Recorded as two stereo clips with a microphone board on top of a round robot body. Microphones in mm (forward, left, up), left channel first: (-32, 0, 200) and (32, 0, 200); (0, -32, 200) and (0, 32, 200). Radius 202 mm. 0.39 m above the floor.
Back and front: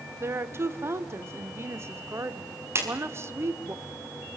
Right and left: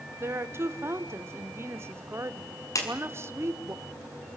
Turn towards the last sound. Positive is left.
turn(degrees=-50)